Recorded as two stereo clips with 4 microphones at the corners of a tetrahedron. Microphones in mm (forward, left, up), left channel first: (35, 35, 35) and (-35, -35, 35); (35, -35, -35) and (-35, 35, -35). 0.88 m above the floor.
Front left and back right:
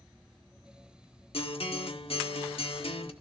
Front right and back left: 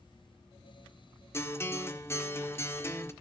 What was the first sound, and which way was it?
A guitar, 20° left.